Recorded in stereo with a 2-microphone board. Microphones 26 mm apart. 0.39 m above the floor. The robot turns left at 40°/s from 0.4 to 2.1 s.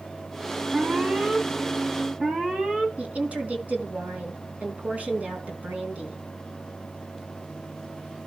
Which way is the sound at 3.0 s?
75° right (ahead or behind).